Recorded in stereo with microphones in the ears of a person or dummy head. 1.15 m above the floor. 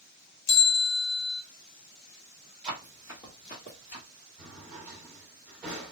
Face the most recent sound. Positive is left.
turn(degrees=-5)  # may be behind; listen again after turning